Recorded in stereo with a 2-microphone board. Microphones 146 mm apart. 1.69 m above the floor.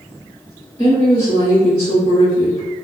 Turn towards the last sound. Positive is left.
turn(degrees=40)  # may be behind; listen again after turning